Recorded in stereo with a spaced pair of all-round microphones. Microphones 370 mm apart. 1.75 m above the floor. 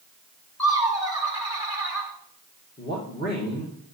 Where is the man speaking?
25° left (ahead or behind), 1.6 m.